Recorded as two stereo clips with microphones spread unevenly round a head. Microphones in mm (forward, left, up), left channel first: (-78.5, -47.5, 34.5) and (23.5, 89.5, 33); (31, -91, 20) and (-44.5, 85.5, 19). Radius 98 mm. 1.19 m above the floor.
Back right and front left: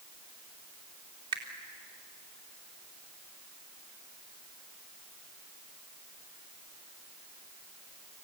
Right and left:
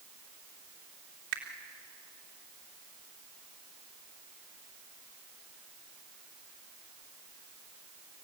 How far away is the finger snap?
About 3 m.